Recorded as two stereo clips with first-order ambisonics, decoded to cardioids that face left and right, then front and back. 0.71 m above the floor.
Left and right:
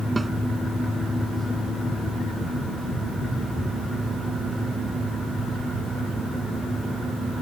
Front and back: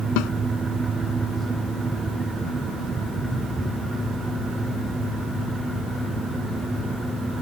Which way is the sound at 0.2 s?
10° right.